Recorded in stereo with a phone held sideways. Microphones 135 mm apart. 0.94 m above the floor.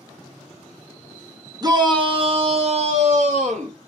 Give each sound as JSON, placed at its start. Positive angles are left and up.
{"t": 1.6, "sound": "a shout", "side_deg": -30, "distance_m": 0.9}